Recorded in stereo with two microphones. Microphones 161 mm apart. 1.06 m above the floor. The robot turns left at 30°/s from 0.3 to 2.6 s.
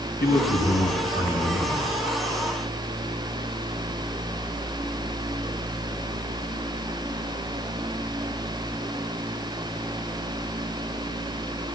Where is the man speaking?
100° left, 7.5 m; by 1.9 s 50° left, 7.5 m.